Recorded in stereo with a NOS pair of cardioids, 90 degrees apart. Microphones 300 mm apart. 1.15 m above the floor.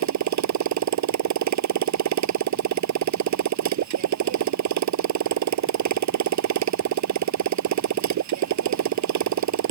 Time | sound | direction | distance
0.0 | a motorcycle | 65° right | ?